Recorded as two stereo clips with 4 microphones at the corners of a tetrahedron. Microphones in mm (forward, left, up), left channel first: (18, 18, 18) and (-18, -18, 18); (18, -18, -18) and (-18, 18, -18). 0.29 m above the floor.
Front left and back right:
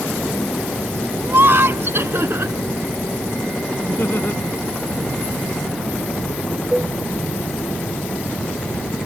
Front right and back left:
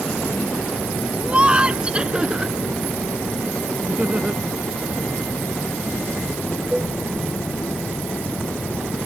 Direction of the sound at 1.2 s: 165° right.